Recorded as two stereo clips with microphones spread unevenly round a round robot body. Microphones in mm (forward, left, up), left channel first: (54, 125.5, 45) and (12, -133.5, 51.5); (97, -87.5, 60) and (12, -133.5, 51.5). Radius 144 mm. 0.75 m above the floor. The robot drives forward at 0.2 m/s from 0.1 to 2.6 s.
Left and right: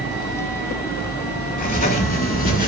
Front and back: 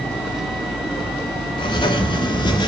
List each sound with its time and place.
1.6 s writing: 45° left, 1.5 m; by 2.7 s 50° left, 1.4 m